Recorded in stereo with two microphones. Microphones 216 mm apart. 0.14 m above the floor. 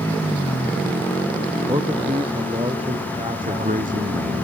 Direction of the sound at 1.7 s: 25° right (ahead or behind).